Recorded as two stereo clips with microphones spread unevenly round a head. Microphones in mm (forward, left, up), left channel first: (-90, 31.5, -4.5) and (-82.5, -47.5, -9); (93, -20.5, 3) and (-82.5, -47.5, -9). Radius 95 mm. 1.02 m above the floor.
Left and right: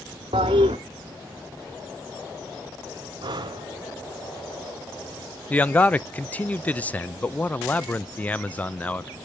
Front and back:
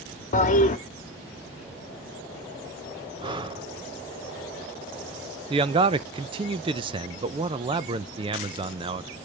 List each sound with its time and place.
0.3 s a toilet flushing: 40° right, 1.1 m
3.2 s breathing: 105° right, 0.9 m
5.5 s a man speaking: 160° left, 0.5 m